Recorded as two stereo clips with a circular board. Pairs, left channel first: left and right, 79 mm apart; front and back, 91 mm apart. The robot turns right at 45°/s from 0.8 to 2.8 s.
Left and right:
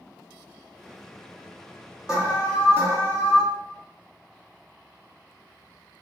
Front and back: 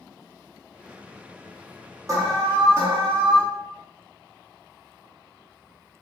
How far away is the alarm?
About 2 m.